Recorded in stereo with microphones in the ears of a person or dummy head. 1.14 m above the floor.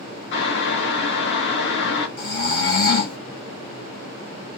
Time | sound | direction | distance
0.3 | boiling | 65° left (ahead or behind) | 0.8 m
2.2 | snoring | 55° left (ahead or behind) | 1.3 m